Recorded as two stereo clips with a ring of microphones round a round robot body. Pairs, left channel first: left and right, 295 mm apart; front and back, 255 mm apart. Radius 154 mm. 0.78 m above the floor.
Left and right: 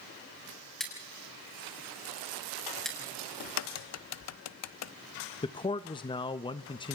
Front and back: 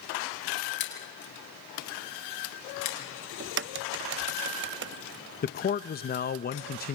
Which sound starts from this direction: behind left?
A crack, at 3.4 s.